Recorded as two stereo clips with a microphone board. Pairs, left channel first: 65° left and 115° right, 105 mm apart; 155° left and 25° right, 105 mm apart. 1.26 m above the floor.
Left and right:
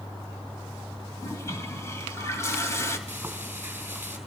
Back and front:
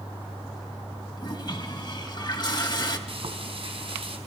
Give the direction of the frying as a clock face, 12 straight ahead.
1 o'clock.